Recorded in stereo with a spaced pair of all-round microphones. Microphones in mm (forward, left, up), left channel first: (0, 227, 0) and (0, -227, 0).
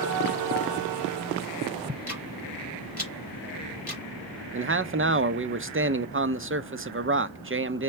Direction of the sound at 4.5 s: 30° right (ahead or behind).